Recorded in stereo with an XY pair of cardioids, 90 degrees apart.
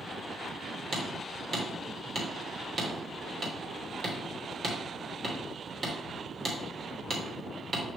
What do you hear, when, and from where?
0.9 s hammering: 45° right, 2.5 m